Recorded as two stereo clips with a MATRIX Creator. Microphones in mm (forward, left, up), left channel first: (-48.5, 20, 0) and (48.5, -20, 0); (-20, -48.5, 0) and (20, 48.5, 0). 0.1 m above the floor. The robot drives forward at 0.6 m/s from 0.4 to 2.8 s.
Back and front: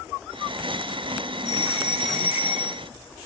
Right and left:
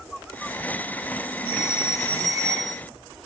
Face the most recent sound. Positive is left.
turn(degrees=45)